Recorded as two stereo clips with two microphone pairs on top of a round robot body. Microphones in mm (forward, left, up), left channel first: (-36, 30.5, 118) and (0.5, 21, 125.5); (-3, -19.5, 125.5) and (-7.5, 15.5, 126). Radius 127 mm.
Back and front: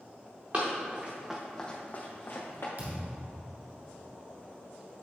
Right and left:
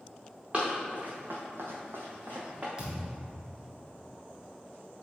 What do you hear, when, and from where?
0.5 s running footsteps: 30° left, 2 m; by 2.7 s 150° left, 1.9 m
2.8 s a thud: 25° left, 1.3 m